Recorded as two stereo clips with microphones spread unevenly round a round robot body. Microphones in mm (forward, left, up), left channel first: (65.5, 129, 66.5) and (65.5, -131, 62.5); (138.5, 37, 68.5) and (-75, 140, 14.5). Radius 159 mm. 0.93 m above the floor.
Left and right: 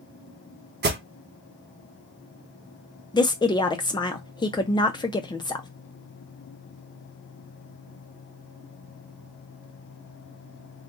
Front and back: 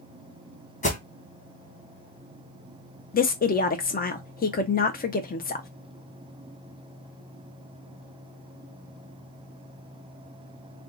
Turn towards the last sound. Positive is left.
turn(degrees=25)